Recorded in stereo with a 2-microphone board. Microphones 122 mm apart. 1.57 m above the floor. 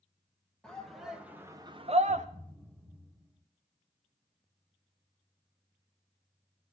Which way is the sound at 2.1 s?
10° left (ahead or behind).